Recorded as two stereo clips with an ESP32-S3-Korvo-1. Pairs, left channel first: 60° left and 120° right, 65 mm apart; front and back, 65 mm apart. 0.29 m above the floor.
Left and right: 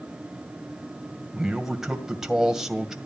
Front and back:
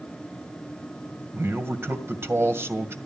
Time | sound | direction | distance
1.3 | a man speaking | 160° left | 1.9 m